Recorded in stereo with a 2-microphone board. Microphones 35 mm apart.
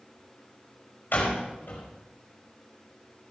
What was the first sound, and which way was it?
A door slam, 65° left (ahead or behind).